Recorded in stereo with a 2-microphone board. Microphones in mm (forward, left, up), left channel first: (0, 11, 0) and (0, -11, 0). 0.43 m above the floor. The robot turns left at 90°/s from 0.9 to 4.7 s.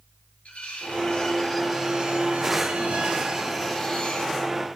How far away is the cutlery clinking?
About 3.5 m.